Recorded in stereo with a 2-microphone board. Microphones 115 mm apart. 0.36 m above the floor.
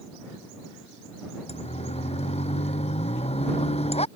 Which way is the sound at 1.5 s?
65° left (ahead or behind).